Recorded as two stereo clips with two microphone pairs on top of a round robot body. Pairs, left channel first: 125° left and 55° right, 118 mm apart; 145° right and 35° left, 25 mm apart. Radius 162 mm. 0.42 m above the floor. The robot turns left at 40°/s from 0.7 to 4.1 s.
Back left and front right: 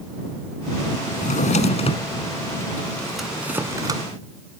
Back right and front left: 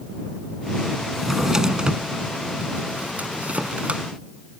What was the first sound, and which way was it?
A drawer, 120° left.